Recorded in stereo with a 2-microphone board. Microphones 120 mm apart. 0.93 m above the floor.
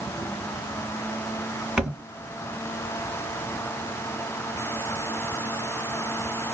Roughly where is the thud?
Centre.